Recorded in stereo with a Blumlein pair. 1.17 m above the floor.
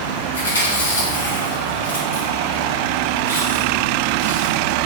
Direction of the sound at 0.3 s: 70° left.